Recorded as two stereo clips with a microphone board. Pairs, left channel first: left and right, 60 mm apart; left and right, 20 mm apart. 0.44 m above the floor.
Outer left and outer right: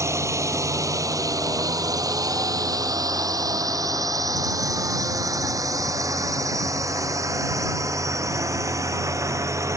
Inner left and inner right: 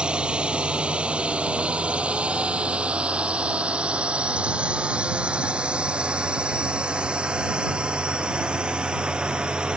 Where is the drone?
55° right (ahead or behind).